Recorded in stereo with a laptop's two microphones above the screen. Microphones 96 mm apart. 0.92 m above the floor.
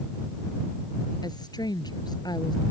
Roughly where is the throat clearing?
I don't hear throat clearing.